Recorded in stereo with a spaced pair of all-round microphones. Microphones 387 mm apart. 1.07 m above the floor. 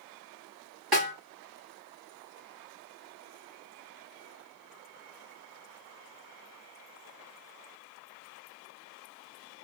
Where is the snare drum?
65° right (ahead or behind), 2 m.